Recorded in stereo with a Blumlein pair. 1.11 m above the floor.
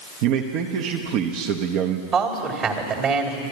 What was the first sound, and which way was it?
A man speaking, 40° right.